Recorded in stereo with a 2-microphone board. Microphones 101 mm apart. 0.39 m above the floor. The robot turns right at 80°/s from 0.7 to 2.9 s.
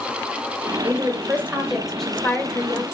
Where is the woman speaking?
25° right (ahead or behind), 0.8 m; by 2.8 s 25° left (ahead or behind), 0.8 m.